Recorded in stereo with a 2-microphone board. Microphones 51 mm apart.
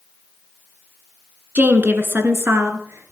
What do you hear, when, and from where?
1.6 s a woman speaking: 35° right (ahead or behind), 1.7 m; by 3.1 s 60° right (ahead or behind), 2.5 m